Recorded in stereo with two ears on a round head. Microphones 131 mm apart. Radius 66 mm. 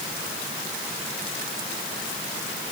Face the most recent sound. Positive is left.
No sound to turn to.